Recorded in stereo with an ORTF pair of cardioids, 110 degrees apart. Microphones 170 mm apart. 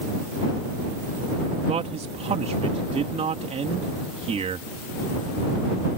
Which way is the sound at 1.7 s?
40° right.